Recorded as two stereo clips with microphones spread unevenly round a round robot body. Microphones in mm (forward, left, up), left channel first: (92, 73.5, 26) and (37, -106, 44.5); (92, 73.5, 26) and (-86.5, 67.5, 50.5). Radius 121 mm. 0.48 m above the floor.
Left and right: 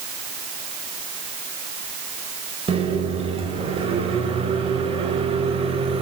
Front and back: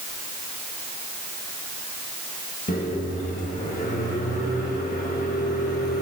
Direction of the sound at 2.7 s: 45° right.